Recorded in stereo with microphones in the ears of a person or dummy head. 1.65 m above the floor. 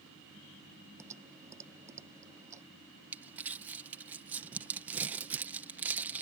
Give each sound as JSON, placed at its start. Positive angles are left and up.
{"t": 1.0, "sound": "typing on a keyboard", "side_deg": -20}
{"t": 3.1, "sound": "crumpling", "side_deg": -10}